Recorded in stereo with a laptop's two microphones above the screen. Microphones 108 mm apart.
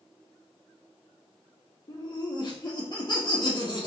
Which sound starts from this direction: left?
Laughter, at 1.9 s.